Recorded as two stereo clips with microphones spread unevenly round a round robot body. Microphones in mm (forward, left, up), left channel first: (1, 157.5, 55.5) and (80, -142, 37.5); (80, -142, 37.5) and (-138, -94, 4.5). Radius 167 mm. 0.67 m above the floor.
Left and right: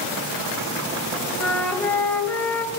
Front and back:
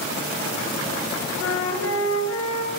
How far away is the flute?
About 4 m.